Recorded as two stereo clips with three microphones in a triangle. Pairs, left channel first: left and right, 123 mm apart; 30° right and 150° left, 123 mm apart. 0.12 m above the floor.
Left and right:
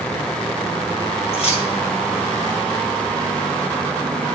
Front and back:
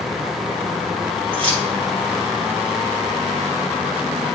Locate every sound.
1.3 s keys jangling: 115° left, 1.8 m